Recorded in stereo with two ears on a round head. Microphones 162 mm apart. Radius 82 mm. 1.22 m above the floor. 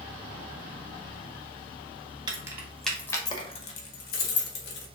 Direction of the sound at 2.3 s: 20° right (ahead or behind).